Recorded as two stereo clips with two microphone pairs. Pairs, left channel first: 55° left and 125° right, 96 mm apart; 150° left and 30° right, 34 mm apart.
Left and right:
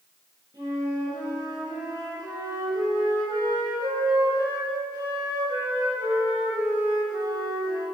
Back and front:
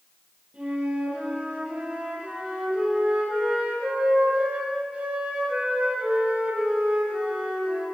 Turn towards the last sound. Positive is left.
turn(degrees=-85)